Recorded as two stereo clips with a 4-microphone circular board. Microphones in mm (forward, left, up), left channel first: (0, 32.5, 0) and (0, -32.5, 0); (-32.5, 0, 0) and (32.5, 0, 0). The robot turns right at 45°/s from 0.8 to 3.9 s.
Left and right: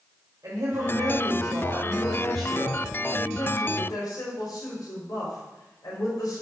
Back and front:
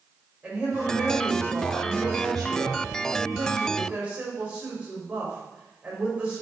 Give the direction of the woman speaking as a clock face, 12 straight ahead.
2 o'clock.